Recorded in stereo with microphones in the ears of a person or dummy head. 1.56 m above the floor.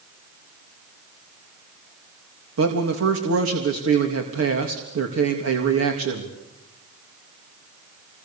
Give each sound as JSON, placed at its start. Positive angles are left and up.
{"t": 2.6, "sound": "a man speaking", "side_deg": -75, "distance_m": 2.5}